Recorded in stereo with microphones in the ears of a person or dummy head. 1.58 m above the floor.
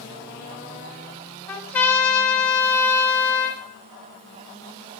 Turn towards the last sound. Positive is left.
turn(degrees=10)  # may be behind; listen again after turning